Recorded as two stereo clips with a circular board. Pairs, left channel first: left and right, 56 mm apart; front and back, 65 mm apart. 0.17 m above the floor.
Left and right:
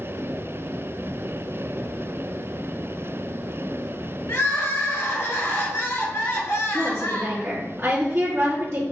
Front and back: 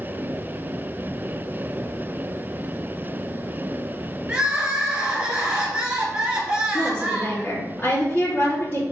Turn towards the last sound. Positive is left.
turn(degrees=-50)